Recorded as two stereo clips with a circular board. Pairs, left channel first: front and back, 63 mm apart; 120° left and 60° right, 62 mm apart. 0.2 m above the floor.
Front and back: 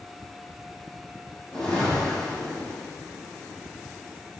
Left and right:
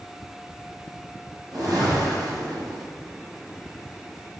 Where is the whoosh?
80° right, 3 m.